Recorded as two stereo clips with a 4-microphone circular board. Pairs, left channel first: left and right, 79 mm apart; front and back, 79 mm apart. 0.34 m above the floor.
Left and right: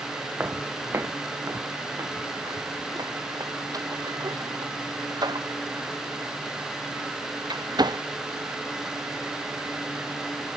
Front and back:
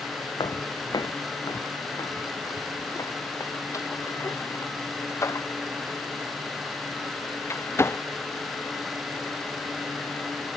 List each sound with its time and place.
0.4 s footsteps: 25° right; by 8.0 s 60° right